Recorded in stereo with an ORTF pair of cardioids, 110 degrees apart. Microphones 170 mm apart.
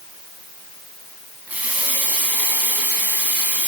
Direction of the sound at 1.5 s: 10° right.